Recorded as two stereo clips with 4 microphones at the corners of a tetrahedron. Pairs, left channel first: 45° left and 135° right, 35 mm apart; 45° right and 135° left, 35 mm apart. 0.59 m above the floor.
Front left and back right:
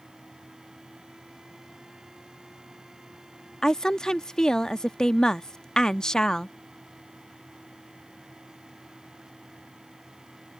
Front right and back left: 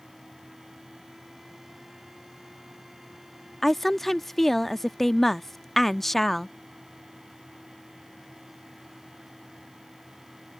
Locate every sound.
3.6 s a woman speaking: 20° left